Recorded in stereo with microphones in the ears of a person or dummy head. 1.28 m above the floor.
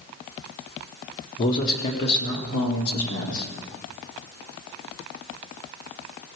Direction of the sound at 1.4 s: 50° left (ahead or behind).